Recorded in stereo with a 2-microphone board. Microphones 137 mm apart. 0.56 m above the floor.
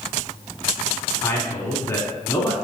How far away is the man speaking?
About 0.9 m.